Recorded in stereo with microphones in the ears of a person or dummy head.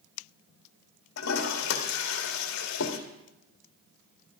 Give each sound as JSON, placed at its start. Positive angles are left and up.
{"t": 1.2, "sound": "a toilet flushing", "side_deg": 70, "distance_m": 1.8}